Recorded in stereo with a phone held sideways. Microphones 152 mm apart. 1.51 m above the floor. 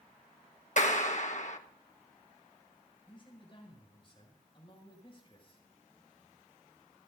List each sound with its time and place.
0.8 s a clap: 55° left (ahead or behind), 1.2 m
3.1 s a man speaking: 35° left (ahead or behind), 6.5 m